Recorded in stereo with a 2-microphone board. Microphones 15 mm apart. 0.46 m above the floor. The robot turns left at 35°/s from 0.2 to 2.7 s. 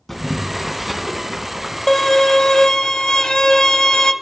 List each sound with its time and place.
0.1 s boiling: 15° left, 3 m; by 1.8 s 40° right, 3 m
1.9 s a violin: 30° left (ahead or behind), 0.8 m; by 4.1 s 60° left (ahead or behind), 0.8 m